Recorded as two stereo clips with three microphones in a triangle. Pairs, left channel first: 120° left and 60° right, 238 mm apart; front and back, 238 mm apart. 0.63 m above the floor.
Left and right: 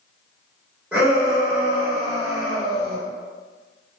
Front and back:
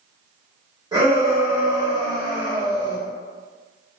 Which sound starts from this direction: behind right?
A shout, at 0.9 s.